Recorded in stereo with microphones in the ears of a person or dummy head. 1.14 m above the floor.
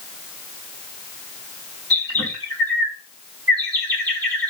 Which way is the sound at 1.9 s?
25° right (ahead or behind).